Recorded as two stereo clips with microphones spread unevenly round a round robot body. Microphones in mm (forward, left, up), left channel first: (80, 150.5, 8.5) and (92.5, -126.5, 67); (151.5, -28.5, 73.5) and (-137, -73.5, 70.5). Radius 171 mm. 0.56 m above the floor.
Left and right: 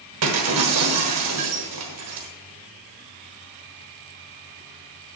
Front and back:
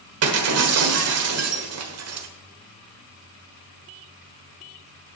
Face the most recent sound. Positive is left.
turn(degrees=-135)